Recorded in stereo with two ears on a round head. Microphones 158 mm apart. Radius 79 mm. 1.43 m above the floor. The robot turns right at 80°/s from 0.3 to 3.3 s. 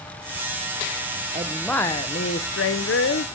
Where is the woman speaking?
25° right, 0.7 m; by 3.3 s 130° left, 0.7 m.